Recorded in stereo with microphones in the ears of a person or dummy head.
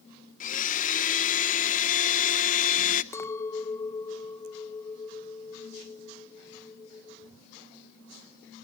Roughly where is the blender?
Left.